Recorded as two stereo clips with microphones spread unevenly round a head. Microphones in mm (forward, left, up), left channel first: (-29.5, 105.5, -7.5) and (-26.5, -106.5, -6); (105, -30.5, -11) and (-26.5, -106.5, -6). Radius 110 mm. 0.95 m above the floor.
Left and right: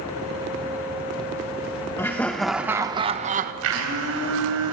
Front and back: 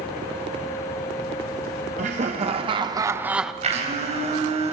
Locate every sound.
2.0 s laughter: 165° left, 1.2 m; by 3.5 s 60° right, 0.9 m
3.6 s a blender: 105° right, 4 m